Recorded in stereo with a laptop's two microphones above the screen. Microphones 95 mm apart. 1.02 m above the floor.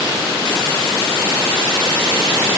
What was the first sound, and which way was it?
Only background noise.